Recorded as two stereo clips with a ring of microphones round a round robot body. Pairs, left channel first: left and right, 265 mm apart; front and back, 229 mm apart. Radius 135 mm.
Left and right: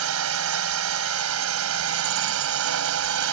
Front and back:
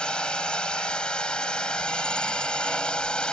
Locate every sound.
0.0 s a drone: 85° right